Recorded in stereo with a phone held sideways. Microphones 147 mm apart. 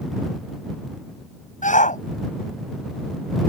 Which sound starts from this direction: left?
A shout, at 1.6 s.